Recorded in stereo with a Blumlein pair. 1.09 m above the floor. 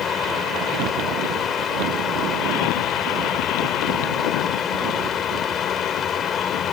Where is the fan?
20° left.